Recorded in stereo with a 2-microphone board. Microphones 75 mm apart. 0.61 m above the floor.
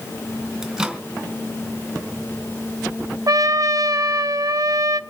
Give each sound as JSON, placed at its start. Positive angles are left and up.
{"t": 0.6, "sound": "a microwave", "side_deg": -5, "distance_m": 2.5}
{"t": 3.3, "sound": "a trumpet", "side_deg": -50, "distance_m": 0.7}